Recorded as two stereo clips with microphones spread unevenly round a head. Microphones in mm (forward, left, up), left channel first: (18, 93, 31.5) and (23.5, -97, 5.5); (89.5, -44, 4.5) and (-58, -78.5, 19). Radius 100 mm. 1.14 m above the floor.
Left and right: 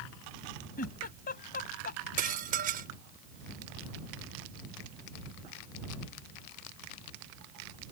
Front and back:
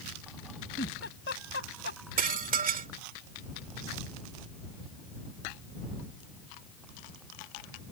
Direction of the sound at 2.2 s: 140° right.